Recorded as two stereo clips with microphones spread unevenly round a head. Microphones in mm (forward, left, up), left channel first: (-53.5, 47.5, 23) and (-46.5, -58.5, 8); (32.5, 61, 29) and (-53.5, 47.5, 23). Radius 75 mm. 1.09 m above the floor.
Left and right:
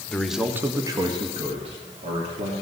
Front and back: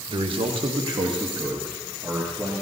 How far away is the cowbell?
No cowbell in this recording.